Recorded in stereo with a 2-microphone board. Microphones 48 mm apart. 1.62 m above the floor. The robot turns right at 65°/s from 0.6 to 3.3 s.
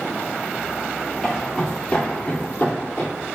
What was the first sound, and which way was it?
Footsteps, centre (ahead or behind).